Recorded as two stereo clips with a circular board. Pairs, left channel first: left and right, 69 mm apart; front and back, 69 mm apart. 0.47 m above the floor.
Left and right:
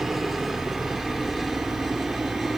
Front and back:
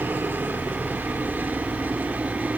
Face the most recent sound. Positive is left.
turn(degrees=180)